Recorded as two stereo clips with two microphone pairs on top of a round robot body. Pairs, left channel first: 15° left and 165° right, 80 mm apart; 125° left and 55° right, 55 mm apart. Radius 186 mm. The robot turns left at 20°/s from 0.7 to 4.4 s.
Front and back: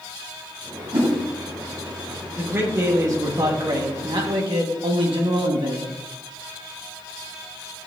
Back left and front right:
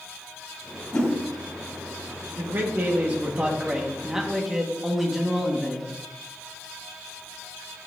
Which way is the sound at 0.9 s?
175° right.